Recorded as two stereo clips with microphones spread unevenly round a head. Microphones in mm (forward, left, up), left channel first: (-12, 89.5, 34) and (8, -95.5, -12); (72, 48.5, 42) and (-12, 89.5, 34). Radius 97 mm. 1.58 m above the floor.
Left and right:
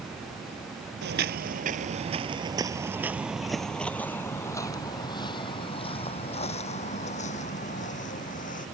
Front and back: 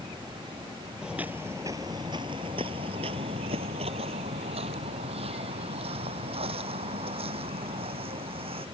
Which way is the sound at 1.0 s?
115° right.